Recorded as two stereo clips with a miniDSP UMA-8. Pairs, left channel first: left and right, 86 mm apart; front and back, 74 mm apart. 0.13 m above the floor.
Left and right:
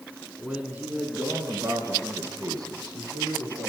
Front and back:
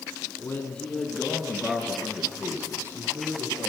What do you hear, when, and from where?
0.4 s a man speaking: 20° right, 1.5 m; by 3.7 s 130° right, 3.5 m